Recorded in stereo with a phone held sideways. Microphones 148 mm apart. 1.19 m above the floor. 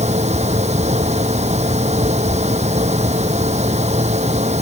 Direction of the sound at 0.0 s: 50° right (ahead or behind).